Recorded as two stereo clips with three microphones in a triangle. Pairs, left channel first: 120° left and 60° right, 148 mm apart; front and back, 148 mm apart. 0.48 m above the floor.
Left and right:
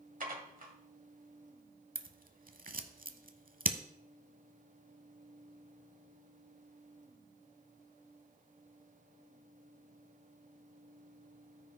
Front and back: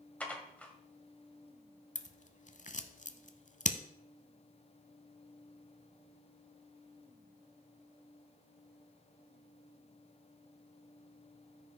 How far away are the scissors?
About 0.7 m.